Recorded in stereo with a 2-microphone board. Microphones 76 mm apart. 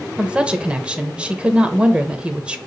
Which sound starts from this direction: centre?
A woman speaking, at 0.2 s.